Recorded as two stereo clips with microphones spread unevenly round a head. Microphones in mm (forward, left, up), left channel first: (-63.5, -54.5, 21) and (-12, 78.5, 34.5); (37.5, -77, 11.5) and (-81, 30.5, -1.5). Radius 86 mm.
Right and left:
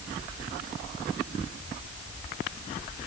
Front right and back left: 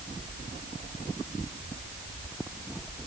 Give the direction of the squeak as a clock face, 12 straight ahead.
I don't hear a squeak.